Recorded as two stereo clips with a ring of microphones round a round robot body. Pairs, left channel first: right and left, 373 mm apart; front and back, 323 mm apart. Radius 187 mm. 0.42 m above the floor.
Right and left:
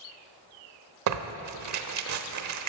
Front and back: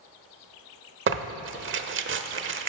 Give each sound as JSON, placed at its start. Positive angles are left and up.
{"t": 1.1, "sound": "tearing paper", "azimuth_deg": 130, "distance_m": 1.0}